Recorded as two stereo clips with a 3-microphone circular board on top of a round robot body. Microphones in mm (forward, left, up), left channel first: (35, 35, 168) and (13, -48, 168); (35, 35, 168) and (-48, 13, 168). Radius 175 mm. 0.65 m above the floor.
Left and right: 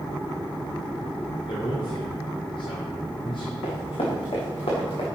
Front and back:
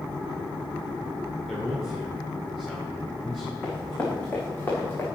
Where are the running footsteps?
80° left, 4 m; by 5.0 s 75° left, 5.5 m.